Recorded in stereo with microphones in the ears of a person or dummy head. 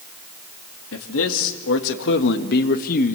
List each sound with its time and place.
0.9 s a man speaking: 75° left (ahead or behind), 2.5 m; by 3.1 s 40° left (ahead or behind), 1.4 m